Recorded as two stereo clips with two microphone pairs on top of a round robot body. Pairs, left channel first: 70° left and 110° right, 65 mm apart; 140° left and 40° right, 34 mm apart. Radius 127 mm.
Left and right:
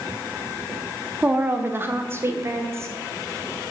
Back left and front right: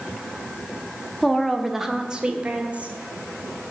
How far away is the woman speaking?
About 1.4 m.